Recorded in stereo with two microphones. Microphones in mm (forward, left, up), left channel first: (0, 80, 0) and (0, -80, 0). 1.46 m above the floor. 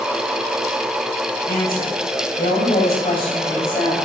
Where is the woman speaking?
65° left (ahead or behind), 7 m; by 4.0 s 75° left (ahead or behind), 7 m.